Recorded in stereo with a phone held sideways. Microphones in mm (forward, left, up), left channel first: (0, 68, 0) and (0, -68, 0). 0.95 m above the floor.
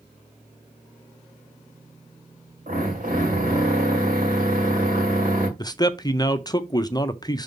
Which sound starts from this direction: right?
A drill, at 2.7 s.